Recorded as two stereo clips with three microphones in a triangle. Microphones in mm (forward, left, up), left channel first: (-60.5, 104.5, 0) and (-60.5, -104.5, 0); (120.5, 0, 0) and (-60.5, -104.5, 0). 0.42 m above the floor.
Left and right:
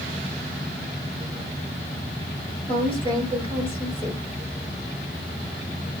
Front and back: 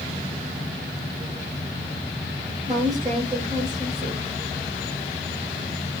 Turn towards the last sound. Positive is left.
turn(degrees=155)